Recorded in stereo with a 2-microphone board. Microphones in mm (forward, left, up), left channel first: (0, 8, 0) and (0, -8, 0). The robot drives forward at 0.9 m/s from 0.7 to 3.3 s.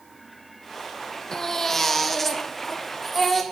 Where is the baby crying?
35° left (ahead or behind), 0.5 m; by 3.4 s 10° left (ahead or behind), 2 m.